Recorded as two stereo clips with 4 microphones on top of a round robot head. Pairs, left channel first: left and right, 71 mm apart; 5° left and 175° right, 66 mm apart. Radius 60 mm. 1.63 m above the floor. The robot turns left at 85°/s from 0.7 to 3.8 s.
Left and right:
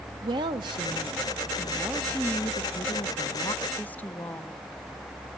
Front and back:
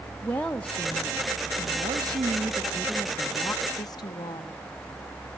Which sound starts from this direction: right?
A woman speaking, at 0.2 s.